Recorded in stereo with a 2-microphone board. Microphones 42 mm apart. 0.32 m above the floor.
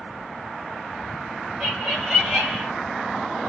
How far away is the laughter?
About 1.9 m.